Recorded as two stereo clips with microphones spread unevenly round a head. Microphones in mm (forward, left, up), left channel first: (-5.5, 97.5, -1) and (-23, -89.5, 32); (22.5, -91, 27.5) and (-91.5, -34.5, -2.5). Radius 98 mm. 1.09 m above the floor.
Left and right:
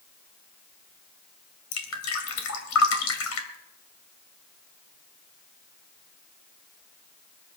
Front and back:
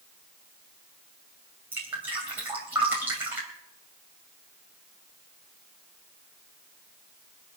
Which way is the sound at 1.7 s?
70° left.